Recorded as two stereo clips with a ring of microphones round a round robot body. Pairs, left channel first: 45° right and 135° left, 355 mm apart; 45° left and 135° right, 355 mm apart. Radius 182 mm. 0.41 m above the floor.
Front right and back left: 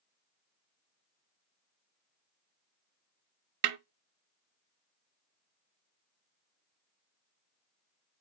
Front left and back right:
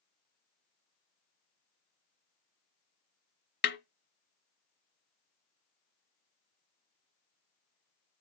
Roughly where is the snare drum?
Left.